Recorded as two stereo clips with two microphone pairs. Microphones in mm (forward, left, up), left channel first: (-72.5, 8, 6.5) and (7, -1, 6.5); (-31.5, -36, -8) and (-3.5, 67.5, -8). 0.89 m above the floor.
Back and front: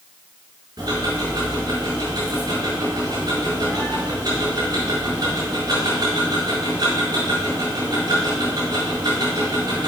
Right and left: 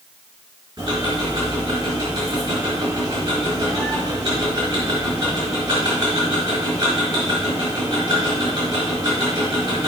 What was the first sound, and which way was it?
Ticking, 20° left.